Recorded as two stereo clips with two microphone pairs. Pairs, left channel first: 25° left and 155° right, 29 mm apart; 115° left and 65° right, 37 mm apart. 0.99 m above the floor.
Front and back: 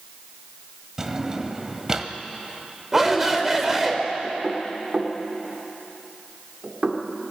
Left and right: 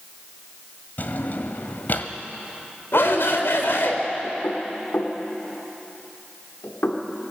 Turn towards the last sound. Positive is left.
turn(degrees=145)